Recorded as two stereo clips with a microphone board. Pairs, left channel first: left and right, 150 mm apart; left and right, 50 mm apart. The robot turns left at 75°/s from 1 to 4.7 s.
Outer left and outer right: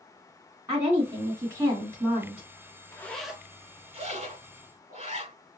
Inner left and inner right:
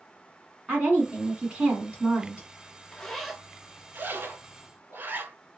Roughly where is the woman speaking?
Centre.